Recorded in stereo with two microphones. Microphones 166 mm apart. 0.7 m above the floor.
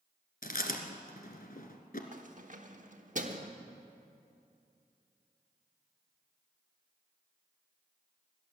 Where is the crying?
No crying in this recording.